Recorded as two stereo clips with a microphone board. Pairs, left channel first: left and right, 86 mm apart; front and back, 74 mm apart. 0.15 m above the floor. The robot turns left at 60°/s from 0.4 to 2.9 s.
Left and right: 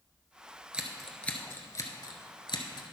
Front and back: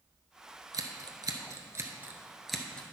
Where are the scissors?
165° right, 1.1 m; by 2.8 s 70° left, 1.1 m.